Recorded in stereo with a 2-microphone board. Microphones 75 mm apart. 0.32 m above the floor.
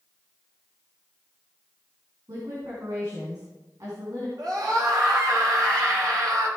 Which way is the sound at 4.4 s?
60° right (ahead or behind).